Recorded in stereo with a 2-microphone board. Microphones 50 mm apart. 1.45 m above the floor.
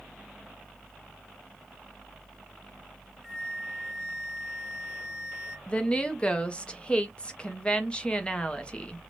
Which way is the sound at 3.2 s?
5° right (ahead or behind).